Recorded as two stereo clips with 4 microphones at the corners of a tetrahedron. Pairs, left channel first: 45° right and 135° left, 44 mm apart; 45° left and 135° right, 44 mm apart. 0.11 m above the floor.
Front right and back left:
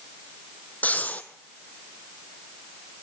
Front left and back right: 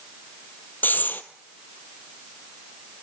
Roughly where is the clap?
No clap in this recording.